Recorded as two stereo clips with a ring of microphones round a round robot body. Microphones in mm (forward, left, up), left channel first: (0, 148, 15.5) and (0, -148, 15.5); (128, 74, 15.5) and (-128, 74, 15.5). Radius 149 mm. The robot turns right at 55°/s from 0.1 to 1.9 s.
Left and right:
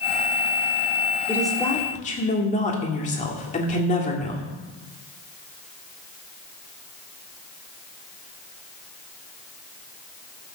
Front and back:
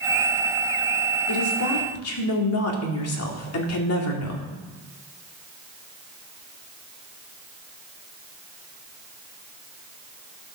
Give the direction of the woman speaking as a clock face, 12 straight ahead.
12 o'clock.